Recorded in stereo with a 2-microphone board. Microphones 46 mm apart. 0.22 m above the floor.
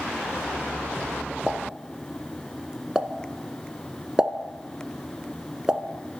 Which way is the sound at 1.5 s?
15° right (ahead or behind).